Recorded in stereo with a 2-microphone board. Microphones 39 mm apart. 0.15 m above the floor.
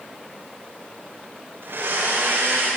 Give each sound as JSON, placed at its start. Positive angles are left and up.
{"t": 1.6, "sound": "a blender", "side_deg": -75, "distance_m": 9.0}